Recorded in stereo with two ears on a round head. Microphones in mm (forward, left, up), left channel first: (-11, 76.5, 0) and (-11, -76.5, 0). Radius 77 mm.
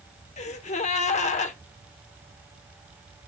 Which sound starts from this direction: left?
A gasp, at 0.4 s.